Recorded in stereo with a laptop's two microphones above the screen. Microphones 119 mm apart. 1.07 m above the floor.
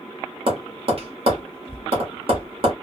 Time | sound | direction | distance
0.5 | tapping | 50° right (ahead or behind) | 1.3 m